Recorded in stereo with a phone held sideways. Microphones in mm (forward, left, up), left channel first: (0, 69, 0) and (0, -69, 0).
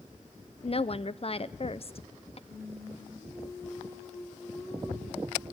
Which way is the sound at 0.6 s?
45° left (ahead or behind).